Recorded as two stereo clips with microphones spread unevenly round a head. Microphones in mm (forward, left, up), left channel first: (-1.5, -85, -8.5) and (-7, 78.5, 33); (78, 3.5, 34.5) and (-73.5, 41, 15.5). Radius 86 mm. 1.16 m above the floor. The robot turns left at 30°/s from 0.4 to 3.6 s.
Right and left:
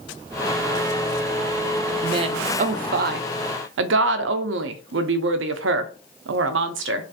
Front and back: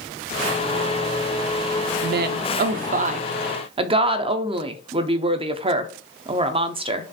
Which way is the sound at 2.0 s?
160° left.